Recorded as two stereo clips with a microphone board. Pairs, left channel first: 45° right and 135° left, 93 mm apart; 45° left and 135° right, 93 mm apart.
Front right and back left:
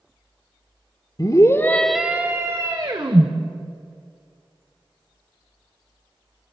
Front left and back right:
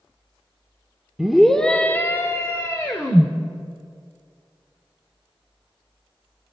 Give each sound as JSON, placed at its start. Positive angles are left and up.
{"t": 1.2, "sound": "a scream", "azimuth_deg": -50, "distance_m": 1.5}